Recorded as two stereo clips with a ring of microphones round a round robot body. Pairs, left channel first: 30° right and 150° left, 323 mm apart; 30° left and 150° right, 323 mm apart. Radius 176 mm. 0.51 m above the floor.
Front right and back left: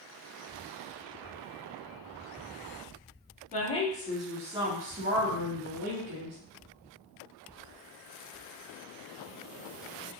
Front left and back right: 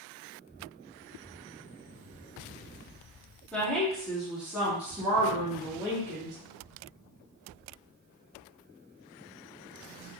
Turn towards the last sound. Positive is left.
turn(degrees=130)